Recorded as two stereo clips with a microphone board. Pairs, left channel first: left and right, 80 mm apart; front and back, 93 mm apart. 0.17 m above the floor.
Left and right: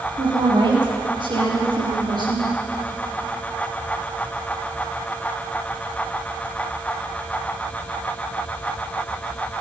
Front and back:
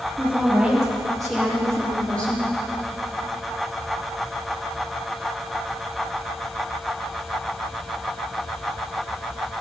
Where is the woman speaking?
100° right, 4.5 m; by 2.5 s 75° right, 5 m.